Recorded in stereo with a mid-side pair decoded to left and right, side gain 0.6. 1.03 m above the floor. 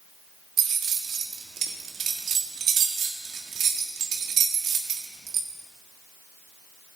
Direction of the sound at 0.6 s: 45° right.